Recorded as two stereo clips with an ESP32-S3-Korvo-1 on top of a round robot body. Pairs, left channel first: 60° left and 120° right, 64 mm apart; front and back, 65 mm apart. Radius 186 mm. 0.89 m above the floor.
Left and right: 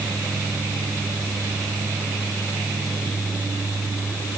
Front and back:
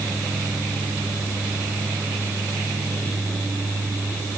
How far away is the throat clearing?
I don't hear throat clearing.